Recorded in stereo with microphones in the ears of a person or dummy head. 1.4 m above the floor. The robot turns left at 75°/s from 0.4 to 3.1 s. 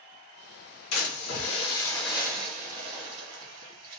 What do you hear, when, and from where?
0.9 s a splash: 90° left, 1.2 m; by 4.0 s 75° right, 1.2 m